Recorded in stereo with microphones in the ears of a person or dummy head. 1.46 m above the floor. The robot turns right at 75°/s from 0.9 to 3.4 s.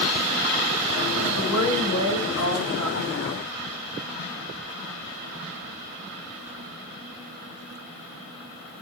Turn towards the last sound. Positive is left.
turn(degrees=-175)